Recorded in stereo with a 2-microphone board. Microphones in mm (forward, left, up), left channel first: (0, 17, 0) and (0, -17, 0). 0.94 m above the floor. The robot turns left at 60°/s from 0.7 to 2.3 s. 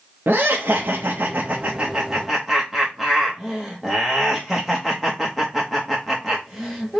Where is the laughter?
85° right, 0.7 m; by 7.0 s straight behind, 0.7 m.